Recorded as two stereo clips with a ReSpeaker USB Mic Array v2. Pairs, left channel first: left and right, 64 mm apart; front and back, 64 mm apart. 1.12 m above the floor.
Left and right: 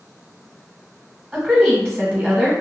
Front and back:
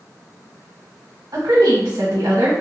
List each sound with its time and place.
1.3 s a woman speaking: 165° right, 1.0 m